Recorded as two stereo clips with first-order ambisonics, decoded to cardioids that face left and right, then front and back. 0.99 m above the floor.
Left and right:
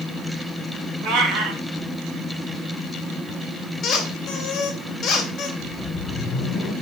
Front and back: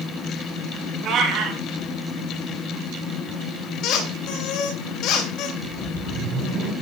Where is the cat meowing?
125° right, 3.5 m.